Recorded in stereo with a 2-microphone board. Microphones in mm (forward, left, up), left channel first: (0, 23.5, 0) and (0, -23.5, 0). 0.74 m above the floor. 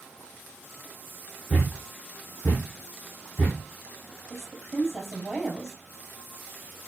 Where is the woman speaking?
5° right (ahead or behind), 4 m.